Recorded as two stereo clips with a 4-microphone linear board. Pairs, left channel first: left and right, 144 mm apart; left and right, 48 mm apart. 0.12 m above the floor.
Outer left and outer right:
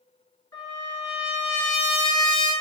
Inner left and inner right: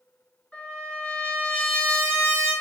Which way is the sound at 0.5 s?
25° left (ahead or behind).